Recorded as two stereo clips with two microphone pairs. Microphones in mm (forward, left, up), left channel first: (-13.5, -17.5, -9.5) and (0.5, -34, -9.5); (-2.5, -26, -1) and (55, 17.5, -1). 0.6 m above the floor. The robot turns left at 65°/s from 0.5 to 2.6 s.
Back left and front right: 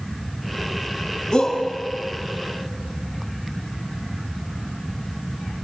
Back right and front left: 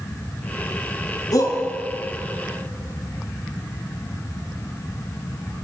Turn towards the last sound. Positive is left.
turn(degrees=115)